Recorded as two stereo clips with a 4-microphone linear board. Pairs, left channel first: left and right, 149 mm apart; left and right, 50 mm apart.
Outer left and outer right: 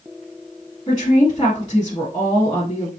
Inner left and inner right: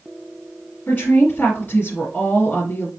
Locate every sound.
0.9 s a woman speaking: 30° left (ahead or behind), 1.4 m